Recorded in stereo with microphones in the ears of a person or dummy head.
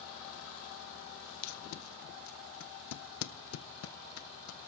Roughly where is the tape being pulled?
Left.